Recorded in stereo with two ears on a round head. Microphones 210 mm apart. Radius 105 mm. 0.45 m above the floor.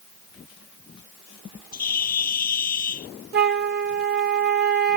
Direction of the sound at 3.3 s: 45° right (ahead or behind).